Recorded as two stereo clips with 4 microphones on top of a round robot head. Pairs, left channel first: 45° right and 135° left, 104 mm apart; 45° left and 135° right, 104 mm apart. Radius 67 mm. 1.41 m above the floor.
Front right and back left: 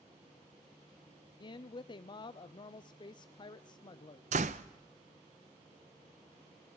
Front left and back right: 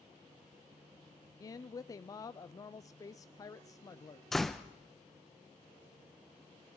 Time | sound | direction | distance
1.4 | a woman speaking | 5° right | 0.5 m
4.3 | a door slam | 135° left | 0.6 m